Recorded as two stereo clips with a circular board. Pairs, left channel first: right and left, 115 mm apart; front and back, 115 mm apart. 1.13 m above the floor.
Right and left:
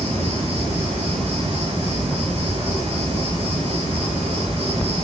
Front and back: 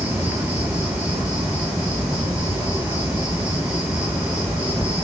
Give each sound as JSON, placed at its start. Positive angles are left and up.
{"t": 0.0, "sound": "an insect", "azimuth_deg": 100, "distance_m": 4.5}